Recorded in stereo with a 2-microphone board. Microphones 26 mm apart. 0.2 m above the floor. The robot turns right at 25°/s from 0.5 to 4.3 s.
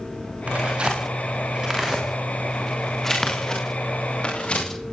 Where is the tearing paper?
55° right (ahead or behind), 9.5 m; by 4.7 s 40° left (ahead or behind), 9.5 m.